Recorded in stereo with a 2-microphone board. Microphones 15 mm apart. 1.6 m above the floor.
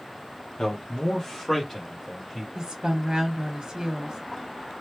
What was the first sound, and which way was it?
A man speaking, 45° left (ahead or behind).